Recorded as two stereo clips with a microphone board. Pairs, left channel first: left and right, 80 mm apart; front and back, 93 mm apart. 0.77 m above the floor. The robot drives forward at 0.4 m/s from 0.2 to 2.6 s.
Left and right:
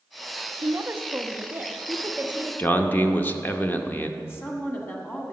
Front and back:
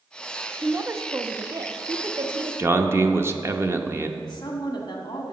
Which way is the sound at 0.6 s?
120° right.